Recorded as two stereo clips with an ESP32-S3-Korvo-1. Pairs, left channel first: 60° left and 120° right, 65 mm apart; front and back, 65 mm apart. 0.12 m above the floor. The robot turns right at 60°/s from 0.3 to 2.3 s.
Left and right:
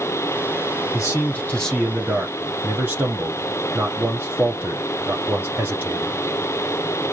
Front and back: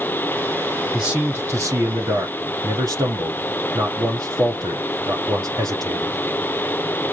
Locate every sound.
0.9 s a man speaking: 100° left, 4 m; by 6.2 s straight behind, 4 m